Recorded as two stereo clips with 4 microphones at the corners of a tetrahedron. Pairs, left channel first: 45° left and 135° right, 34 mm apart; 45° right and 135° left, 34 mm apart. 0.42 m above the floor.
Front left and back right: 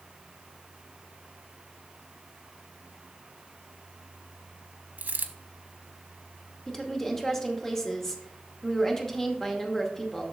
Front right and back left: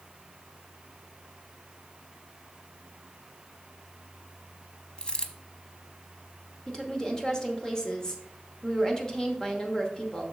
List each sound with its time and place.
5.0 s a dropped coin: 105° right, 0.6 m
6.7 s a woman speaking: 15° right, 1.0 m